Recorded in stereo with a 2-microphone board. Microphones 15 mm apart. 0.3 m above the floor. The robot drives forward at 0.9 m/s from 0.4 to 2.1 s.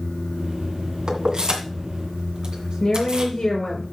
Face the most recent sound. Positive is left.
turn(degrees=45)  # may be behind; listen again after turning